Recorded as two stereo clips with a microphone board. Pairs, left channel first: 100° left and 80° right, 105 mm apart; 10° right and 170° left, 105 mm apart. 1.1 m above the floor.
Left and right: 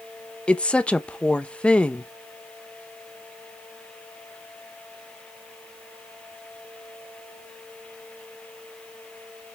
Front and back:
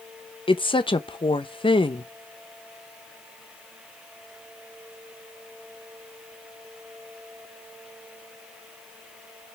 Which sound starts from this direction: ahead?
A woman speaking, at 0.5 s.